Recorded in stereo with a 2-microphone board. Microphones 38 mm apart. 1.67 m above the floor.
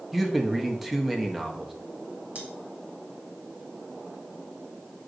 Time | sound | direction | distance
0.1 | a man speaking | 5° right (ahead or behind) | 0.9 m
2.4 | cutlery clinking | 35° right (ahead or behind) | 2 m